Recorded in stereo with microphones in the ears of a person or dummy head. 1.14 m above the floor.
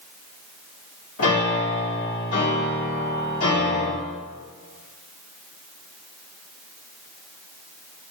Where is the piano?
85° left, 1.5 m.